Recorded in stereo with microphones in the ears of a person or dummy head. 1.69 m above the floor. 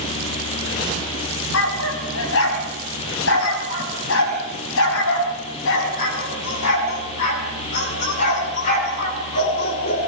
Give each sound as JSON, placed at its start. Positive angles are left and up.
{"t": 1.5, "sound": "a dog barking", "side_deg": 75, "distance_m": 5.5}